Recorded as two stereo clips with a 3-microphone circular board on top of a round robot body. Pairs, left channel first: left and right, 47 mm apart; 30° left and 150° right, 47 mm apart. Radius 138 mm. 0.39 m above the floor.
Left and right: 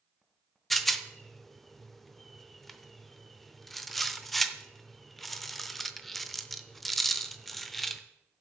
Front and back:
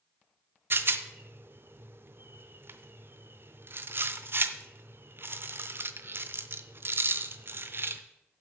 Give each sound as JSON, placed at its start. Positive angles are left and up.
{"t": 0.7, "sound": "a rattle", "azimuth_deg": 180, "distance_m": 0.7}